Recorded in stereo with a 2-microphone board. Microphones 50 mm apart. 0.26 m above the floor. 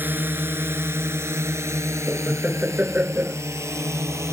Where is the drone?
40° right (ahead or behind); by 4.3 s 75° right (ahead or behind).